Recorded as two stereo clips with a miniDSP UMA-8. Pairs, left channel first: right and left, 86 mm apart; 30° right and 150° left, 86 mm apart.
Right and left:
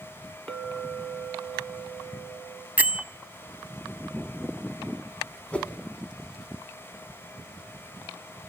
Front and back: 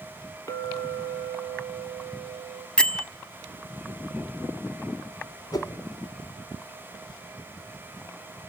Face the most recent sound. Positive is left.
turn(degrees=-20)